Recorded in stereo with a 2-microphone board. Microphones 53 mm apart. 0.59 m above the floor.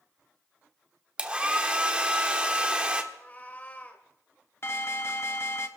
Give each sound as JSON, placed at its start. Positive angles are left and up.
{"t": 1.2, "sound": "a hair dryer", "side_deg": -20, "distance_m": 0.9}
{"t": 3.1, "sound": "a cat meowing", "side_deg": 30, "distance_m": 1.4}
{"t": 4.6, "sound": "an alarm", "side_deg": 50, "distance_m": 0.8}